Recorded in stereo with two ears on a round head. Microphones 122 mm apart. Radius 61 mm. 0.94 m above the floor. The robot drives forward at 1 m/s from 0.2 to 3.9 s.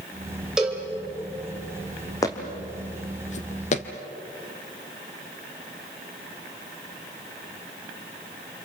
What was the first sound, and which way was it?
A cowbell, 5° right (ahead or behind).